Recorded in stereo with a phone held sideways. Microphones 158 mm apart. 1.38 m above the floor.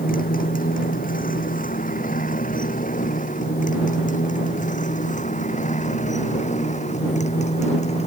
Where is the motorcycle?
75° left (ahead or behind); by 8.1 s 50° left (ahead or behind).